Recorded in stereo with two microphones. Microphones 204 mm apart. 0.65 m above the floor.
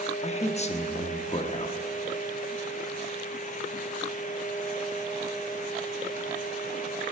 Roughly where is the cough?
I don't hear a cough.